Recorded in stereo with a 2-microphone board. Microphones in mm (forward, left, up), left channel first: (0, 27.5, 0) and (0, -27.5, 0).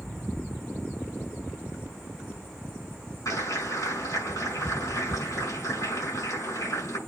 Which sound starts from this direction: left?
A clap, at 3.2 s.